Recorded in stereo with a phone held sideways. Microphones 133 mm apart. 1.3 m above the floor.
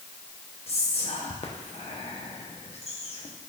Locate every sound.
0.7 s whispering: 50° left (ahead or behind), 0.9 m